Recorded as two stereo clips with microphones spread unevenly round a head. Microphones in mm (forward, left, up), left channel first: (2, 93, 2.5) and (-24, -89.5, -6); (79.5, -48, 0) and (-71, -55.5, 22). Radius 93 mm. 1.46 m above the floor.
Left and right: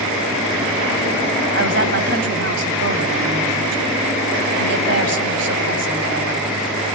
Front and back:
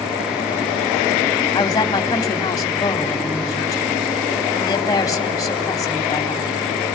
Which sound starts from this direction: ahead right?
A woman speaking, at 1.5 s.